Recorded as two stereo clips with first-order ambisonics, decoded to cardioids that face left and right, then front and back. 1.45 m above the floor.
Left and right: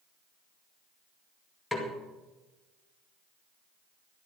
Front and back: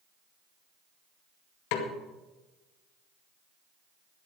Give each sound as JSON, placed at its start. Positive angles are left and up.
{"t": 1.7, "sound": "a snare drum", "azimuth_deg": 0, "distance_m": 2.0}